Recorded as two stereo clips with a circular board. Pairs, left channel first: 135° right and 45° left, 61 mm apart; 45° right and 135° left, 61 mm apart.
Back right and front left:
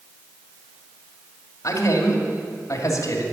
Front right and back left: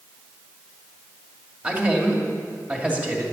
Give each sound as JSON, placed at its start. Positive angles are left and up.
{"t": 1.6, "sound": "a man speaking", "azimuth_deg": -160, "distance_m": 2.0}